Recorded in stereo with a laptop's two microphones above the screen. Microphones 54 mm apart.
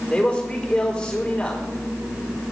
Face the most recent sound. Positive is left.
turn(degrees=15)  # may be behind; listen again after turning